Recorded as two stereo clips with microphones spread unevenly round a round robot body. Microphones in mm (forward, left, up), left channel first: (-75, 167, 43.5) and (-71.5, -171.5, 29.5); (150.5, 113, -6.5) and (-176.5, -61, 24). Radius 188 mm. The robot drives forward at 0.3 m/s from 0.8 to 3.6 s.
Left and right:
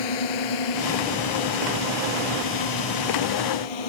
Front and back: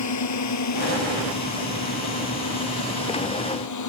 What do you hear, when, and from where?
0.0 s a drone: 75° left